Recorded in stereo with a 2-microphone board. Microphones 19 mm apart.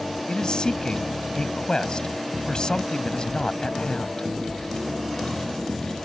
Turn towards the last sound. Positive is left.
turn(degrees=45)  # may be behind; listen again after turning